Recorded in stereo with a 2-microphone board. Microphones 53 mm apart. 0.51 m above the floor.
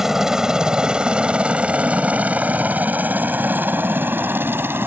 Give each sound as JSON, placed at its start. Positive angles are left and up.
{"t": 0.0, "sound": "a helicopter", "side_deg": -10}